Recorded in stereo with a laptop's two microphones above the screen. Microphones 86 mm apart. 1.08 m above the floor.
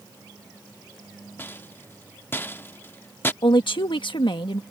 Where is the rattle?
25° left (ahead or behind).